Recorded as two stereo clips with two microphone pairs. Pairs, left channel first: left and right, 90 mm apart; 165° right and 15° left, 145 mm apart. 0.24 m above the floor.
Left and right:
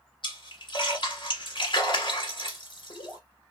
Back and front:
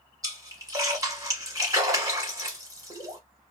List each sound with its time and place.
0.2 s a splash: 80° left, 1.2 m